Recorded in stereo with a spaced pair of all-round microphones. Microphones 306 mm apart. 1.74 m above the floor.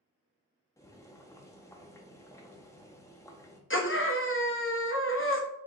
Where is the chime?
No chime in this recording.